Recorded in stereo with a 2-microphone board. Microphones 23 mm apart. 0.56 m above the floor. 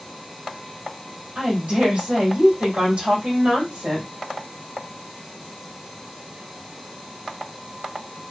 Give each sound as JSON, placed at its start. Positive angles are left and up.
{"t": 1.4, "sound": "a woman speaking", "side_deg": -65, "distance_m": 2.0}